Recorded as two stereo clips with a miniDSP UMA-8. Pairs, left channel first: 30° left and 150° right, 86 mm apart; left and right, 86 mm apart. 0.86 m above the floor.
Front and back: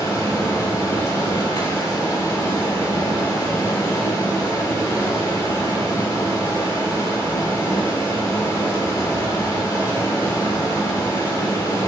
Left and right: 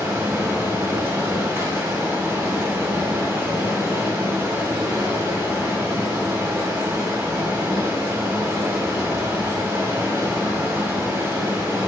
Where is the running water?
25° right, 3.5 m.